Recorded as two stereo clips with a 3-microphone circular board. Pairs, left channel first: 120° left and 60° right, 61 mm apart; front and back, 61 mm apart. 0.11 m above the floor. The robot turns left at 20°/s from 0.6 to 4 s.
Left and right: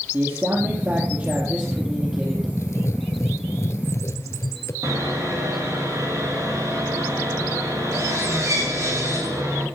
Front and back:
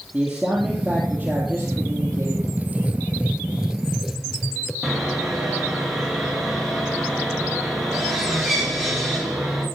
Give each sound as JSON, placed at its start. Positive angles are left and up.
{"t": 0.1, "sound": "a man speaking", "azimuth_deg": -100, "distance_m": 3.5}
{"t": 2.6, "sound": "writing", "azimuth_deg": 125, "distance_m": 0.9}
{"t": 4.8, "sound": "sawing", "azimuth_deg": -95, "distance_m": 7.0}